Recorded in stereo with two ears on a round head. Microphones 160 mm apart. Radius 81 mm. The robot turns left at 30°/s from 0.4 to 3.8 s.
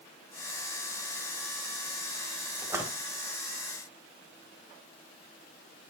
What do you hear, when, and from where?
2.6 s a splash: 20° right (ahead or behind), 1.7 m; by 2.9 s 10° right (ahead or behind), 1.7 m